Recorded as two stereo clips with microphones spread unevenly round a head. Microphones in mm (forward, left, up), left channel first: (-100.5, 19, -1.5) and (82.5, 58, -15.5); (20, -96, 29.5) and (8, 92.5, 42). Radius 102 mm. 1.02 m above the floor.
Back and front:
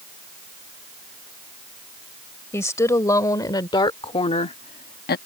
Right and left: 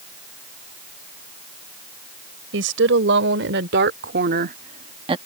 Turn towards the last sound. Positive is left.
turn(degrees=160)